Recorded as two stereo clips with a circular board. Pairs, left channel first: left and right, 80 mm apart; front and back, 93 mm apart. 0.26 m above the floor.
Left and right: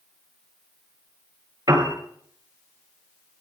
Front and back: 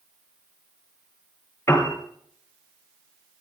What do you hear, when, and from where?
1.7 s a piano: 55° right, 3.5 m